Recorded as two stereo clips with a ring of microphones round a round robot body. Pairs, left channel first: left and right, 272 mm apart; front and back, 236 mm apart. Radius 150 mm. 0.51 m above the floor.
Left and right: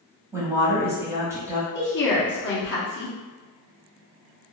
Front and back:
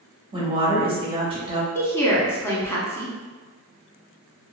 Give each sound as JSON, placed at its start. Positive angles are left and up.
{"t": 0.3, "sound": "a woman speaking", "azimuth_deg": -155, "distance_m": 1.0}
{"t": 1.8, "sound": "a woman speaking", "azimuth_deg": 75, "distance_m": 0.9}